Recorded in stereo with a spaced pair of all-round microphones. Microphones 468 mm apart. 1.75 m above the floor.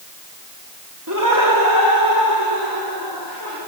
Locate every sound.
1.1 s laughter: 40° right (ahead or behind), 3.5 m; by 3.6 s 45° right (ahead or behind), 7 m